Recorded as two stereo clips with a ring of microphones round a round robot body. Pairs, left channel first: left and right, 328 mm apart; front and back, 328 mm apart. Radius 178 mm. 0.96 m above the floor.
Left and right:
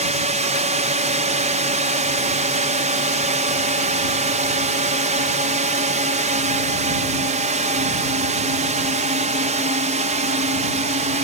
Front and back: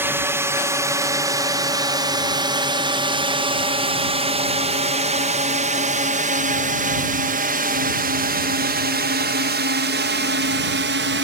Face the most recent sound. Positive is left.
turn(degrees=-150)